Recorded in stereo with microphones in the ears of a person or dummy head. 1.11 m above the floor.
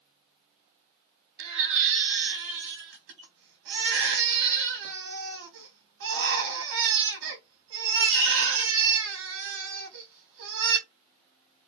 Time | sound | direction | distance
1.4 | a baby crying | 65° right (ahead or behind) | 1.0 m